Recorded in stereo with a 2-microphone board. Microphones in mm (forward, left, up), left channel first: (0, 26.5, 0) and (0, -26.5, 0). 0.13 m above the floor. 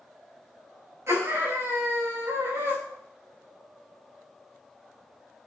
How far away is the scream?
About 9.5 m.